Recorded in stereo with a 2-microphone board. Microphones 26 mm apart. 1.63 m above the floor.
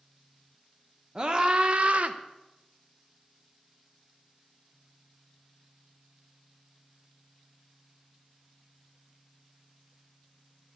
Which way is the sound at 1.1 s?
30° right (ahead or behind).